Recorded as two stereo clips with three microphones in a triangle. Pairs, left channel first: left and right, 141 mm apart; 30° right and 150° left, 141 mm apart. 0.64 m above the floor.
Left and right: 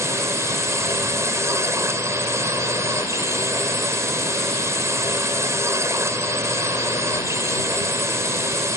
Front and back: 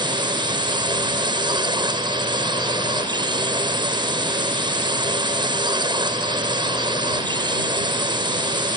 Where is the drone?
160° right.